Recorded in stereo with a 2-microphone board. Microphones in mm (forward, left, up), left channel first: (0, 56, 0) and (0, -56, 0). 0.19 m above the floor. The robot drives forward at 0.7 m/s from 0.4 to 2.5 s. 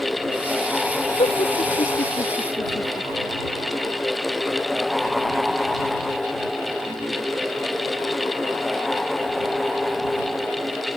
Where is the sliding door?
I don't hear a sliding door.